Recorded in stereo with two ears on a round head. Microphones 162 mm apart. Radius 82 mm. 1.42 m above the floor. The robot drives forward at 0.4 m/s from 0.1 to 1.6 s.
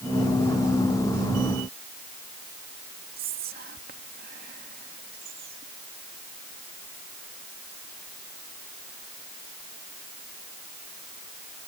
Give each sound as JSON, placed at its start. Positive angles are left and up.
{"t": 3.2, "sound": "whispering", "side_deg": -50}